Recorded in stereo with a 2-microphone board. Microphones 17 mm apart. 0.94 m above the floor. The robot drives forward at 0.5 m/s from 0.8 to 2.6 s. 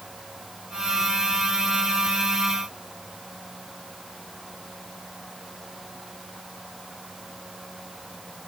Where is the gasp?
I don't hear a gasp.